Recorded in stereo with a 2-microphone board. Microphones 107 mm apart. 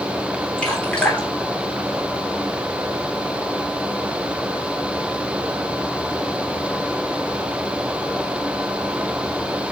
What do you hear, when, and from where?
0.6 s dripping: 10° left (ahead or behind), 3 m